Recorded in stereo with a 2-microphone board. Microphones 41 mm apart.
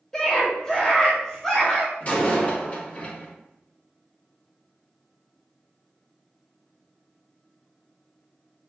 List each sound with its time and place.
0.1 s a scream: 10° left (ahead or behind), 0.8 m
2.0 s a door slam: 40° left (ahead or behind), 2 m